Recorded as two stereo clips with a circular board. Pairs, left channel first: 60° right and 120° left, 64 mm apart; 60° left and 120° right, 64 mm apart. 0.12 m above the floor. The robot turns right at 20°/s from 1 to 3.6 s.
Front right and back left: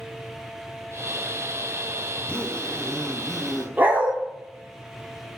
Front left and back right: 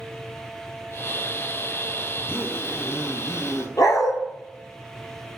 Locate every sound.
2.2 s a zipper: 5° left, 0.9 m; by 3.7 s 35° left, 0.9 m
3.8 s a dog barking: 60° left, 0.9 m